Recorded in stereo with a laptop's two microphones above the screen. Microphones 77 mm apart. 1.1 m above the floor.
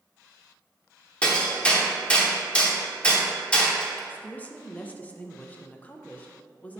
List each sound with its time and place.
1.2 s hammering: 15° left (ahead or behind), 0.8 m
4.1 s a woman speaking: 20° left (ahead or behind), 0.7 m